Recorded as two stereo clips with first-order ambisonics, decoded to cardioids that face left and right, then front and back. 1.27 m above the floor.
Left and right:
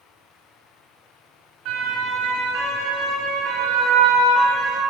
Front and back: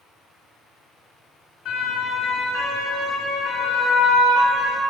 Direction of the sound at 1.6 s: 55° right.